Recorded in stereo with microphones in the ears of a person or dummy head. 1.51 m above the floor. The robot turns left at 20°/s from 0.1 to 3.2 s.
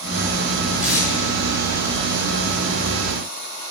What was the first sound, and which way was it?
Tape being pulled, 5° right (ahead or behind).